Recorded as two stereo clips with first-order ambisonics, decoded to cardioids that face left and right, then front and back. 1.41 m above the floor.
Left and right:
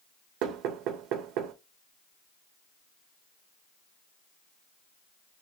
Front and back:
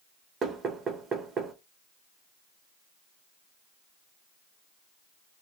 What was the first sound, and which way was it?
Knocking, 115° right.